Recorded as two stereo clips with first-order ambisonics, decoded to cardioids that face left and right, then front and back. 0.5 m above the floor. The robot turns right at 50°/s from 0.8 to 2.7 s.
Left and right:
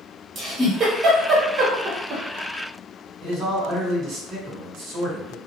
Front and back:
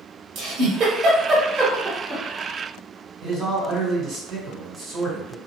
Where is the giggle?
150° right, 1.2 m; by 2.2 s 80° right, 1.2 m.